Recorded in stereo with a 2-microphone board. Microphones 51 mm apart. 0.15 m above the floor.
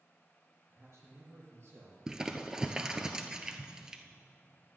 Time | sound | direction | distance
0.7 | a man speaking | 60° right (ahead or behind) | 4.5 m
2.1 | crumpling | 15° right (ahead or behind) | 0.9 m